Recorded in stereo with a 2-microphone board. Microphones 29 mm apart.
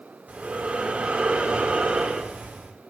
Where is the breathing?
55° right (ahead or behind), 1.8 m.